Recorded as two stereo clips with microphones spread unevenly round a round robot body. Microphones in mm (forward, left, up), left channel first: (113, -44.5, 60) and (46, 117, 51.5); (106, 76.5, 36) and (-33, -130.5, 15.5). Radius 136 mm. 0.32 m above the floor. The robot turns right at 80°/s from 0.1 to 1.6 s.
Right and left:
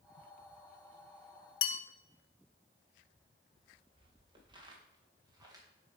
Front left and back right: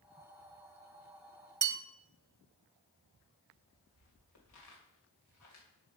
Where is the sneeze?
No sneeze in this recording.